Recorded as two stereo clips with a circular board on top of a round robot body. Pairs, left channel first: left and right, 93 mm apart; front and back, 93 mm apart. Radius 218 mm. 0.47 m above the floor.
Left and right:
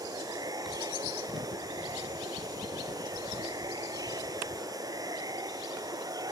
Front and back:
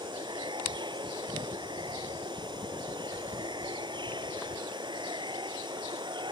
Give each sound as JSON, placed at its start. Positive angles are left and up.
{"t": 0.0, "sound": "running water", "azimuth_deg": -140}